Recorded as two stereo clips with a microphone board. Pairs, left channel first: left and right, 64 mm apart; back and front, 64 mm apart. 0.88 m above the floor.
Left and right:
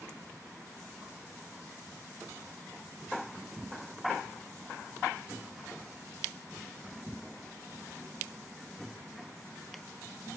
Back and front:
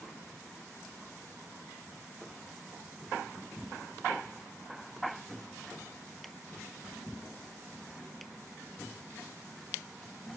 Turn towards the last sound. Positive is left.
No sound to turn to.